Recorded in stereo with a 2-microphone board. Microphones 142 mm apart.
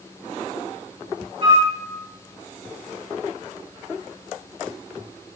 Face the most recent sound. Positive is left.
turn(degrees=-45)  # may be behind; listen again after turning